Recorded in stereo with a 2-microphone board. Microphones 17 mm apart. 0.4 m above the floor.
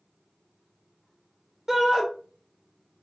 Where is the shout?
25° right (ahead or behind), 0.8 m.